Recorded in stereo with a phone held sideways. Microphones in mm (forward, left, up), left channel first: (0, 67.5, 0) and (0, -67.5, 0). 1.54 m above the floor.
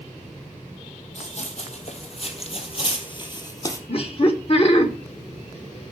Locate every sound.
1.1 s running footsteps: 55° left (ahead or behind), 3 m; by 3.8 s 25° left (ahead or behind), 1.9 m
3.9 s laughter: 45° left (ahead or behind), 1.8 m